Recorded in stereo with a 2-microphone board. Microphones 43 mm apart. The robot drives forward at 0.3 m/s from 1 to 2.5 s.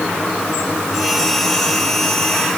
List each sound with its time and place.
Only background noise.